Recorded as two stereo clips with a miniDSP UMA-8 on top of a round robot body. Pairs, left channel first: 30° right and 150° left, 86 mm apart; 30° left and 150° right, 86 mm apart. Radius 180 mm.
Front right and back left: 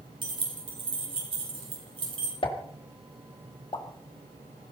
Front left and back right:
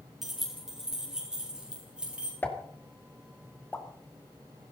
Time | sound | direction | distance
0.2 | keys jangling | 125° left | 4 m
2.4 | a pop | 35° right | 2.5 m